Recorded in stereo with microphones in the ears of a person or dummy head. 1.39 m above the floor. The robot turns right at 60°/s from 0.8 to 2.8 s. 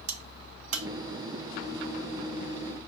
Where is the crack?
75° right (ahead or behind), 0.9 m.